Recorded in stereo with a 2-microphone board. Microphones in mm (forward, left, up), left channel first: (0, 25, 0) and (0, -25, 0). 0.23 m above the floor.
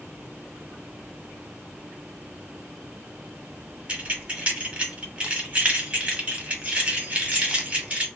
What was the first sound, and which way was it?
Keys jangling, 25° right (ahead or behind).